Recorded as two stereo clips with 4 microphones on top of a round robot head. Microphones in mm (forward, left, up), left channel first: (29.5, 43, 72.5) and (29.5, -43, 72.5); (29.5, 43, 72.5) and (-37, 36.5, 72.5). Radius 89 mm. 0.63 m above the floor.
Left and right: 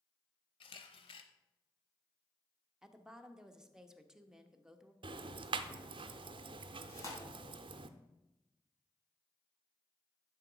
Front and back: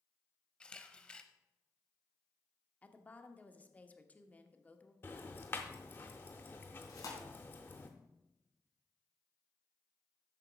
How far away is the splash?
No splash in this recording.